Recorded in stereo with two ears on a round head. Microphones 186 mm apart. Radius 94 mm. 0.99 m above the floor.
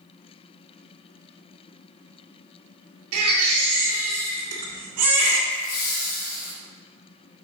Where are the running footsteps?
No running footsteps in this recording.